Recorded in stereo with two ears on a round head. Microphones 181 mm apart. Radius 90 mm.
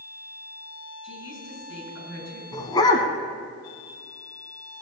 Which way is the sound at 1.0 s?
70° left (ahead or behind).